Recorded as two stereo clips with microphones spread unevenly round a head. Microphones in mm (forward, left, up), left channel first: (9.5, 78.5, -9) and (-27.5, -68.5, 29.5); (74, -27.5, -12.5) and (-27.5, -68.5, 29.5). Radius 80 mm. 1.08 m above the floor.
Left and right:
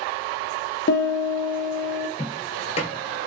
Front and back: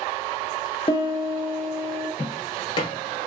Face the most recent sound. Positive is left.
turn(degrees=70)